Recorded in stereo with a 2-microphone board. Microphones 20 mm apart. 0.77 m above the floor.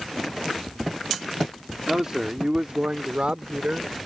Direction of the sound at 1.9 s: 25° right (ahead or behind).